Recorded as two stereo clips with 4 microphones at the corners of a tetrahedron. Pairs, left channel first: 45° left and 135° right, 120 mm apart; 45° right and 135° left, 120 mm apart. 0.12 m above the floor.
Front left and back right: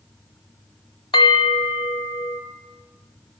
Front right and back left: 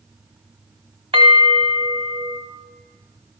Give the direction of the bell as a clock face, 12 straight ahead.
9 o'clock.